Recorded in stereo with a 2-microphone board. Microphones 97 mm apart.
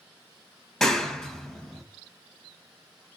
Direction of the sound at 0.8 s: 5° left (ahead or behind).